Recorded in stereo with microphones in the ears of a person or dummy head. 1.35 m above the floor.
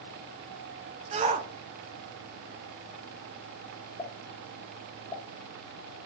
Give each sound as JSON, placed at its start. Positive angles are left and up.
{"t": 1.1, "sound": "a shout", "side_deg": -30, "distance_m": 0.5}
{"t": 4.0, "sound": "a pop", "side_deg": 30, "distance_m": 0.9}